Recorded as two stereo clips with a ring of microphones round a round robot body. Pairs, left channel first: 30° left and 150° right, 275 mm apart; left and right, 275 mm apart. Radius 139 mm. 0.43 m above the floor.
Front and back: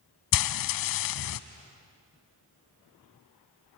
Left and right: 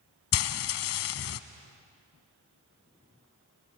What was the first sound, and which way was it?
Frying, 50° left.